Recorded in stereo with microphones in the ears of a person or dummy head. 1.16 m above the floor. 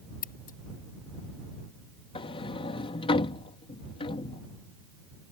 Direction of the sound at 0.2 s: 50° left (ahead or behind).